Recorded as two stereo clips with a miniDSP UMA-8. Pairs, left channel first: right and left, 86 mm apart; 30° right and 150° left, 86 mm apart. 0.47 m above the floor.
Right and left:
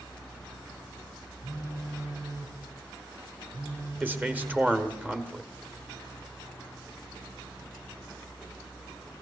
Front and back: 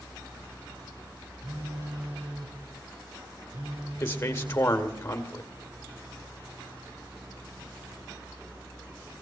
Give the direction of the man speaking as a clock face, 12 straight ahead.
11 o'clock.